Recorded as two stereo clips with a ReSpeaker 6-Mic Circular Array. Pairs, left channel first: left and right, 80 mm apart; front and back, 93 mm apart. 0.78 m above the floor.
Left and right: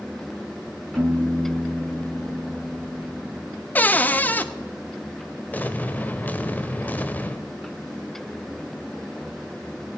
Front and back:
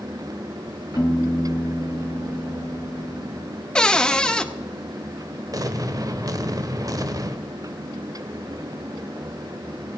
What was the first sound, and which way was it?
A piano, 45° right.